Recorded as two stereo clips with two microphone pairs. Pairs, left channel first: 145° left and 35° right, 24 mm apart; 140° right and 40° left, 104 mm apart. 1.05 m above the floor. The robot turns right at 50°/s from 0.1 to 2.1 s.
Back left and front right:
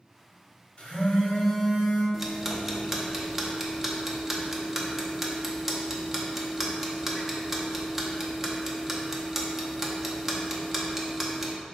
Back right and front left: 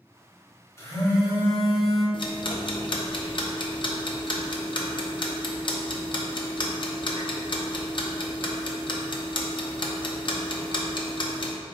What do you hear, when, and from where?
0.8 s a phone buzzing: 165° left, 1.3 m; by 2.0 s 130° right, 1.3 m
2.1 s ticking: 110° right, 0.6 m